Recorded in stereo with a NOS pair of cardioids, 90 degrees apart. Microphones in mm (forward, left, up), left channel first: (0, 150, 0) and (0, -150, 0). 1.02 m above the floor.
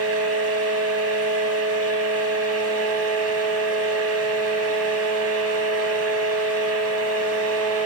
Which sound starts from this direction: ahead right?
A fan, at 0.0 s.